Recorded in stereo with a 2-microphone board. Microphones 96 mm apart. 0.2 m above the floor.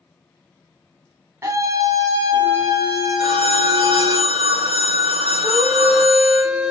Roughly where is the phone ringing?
Right.